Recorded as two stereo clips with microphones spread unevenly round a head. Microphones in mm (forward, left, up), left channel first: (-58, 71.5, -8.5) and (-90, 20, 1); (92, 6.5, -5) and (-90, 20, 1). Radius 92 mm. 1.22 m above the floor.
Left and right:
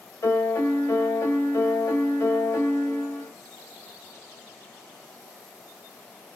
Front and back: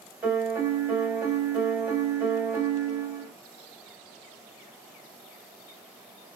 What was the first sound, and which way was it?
A piano, 95° left.